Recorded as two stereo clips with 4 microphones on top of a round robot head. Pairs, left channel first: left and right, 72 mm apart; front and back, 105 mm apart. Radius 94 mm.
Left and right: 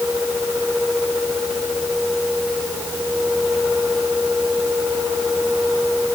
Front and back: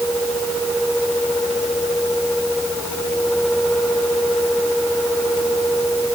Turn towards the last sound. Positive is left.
No sound to turn to.